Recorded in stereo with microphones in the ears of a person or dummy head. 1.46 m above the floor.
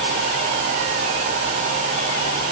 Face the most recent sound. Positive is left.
No sound to turn to.